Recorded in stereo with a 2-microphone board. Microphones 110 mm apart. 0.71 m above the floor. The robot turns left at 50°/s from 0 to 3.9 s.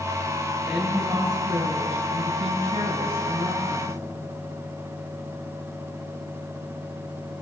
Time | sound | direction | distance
0.7 | a woman speaking | 5° left | 9.5 m